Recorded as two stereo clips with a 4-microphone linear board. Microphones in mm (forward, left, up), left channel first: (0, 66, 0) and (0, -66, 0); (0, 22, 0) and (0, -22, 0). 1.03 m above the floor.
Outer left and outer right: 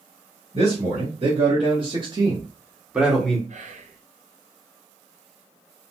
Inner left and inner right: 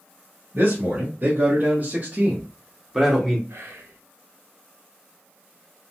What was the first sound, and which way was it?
A man speaking, 50° right (ahead or behind).